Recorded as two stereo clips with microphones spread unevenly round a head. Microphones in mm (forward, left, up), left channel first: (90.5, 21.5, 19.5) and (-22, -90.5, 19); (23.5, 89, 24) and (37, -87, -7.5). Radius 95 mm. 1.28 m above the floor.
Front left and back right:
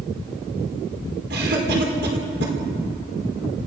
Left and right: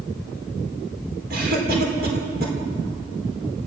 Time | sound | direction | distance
1.3 | a cough | 130° right | 5 m